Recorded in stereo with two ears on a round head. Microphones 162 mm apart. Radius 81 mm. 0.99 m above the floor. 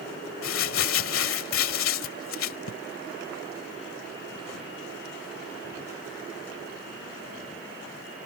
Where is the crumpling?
80° left.